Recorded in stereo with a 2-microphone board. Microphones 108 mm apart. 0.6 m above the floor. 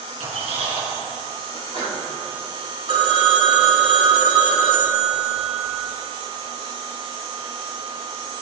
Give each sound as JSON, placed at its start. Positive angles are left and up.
{"t": 0.2, "sound": "a squeak", "side_deg": -65, "distance_m": 4.0}
{"t": 1.5, "sound": "a sneeze", "side_deg": -55, "distance_m": 4.0}
{"t": 2.9, "sound": "a phone ringing", "side_deg": -50, "distance_m": 1.3}